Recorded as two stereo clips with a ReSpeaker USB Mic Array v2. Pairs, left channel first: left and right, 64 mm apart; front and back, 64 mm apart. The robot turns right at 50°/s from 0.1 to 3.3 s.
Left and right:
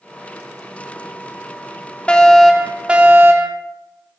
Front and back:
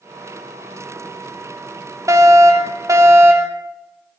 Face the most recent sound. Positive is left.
turn(degrees=-140)